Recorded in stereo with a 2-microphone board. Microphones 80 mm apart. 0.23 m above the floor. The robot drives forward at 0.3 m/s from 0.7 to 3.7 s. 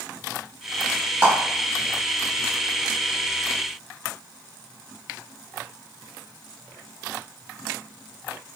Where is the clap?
15° right (ahead or behind), 1.2 m.